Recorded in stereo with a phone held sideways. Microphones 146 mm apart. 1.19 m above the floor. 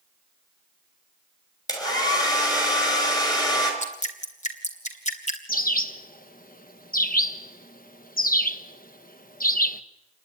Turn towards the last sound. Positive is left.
turn(degrees=80)